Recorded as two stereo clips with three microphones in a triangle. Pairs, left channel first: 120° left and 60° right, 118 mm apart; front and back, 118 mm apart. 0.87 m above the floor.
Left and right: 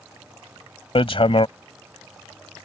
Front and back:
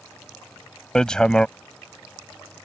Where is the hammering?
85° left.